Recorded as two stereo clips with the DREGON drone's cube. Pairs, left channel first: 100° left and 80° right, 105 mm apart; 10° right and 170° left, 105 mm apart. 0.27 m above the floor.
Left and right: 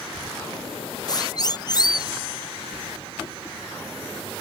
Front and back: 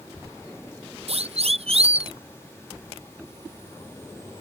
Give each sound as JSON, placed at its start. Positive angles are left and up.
{"t": 1.1, "sound": "a siren", "azimuth_deg": 150}